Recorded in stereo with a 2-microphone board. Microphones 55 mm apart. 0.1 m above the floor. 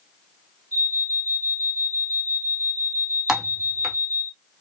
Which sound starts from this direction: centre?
Typing on a keyboard, at 3.3 s.